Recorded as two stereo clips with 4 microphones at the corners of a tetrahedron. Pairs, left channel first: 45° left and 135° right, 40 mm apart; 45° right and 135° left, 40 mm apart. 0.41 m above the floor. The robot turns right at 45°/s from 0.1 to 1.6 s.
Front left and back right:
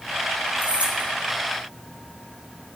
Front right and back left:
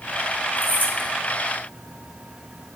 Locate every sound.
0.6 s keys jangling: 90° right, 3.5 m; by 1.1 s 65° right, 3.5 m